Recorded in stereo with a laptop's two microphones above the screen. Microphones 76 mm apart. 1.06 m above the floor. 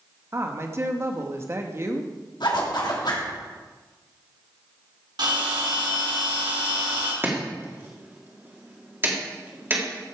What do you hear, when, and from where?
0.3 s a woman speaking: 35° right (ahead or behind), 1.5 m
2.4 s a zipper: 75° left (ahead or behind), 2.5 m
5.2 s a bell: 75° right (ahead or behind), 3.5 m
7.2 s chopping: 30° right (ahead or behind), 2 m